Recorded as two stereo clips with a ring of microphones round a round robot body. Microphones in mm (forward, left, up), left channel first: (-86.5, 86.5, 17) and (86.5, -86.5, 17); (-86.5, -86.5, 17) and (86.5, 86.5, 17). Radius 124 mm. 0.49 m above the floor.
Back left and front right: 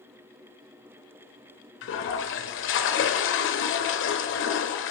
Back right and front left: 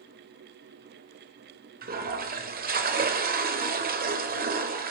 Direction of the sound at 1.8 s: 100° left.